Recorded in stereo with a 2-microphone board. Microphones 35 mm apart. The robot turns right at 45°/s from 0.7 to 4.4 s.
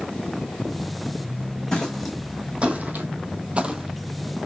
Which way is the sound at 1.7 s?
20° left (ahead or behind).